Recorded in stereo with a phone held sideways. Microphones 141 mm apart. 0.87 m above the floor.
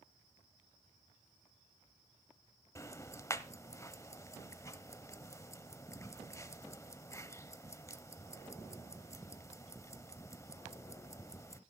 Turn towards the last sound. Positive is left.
turn(degrees=20)  # may be behind; listen again after turning